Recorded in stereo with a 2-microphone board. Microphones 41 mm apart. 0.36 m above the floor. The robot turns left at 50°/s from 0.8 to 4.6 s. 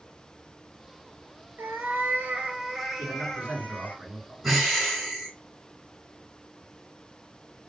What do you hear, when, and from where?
1.6 s a cat meowing: 105° right, 1.2 m; by 4.0 s 135° left, 1.2 m
3.0 s a man speaking: 125° right, 3.5 m; by 4.3 s 165° left, 3.5 m
4.4 s breathing: 5° right (ahead or behind), 1.5 m; by 5.3 s 5° left (ahead or behind), 1.5 m